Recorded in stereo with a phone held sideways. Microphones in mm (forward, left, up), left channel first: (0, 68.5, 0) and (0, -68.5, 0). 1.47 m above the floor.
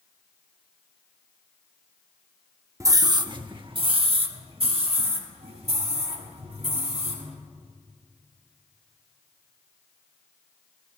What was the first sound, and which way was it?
A scream, 25° right (ahead or behind).